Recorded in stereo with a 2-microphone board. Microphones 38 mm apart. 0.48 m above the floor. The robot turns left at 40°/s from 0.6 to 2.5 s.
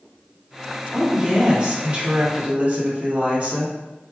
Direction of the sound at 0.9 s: 30° right.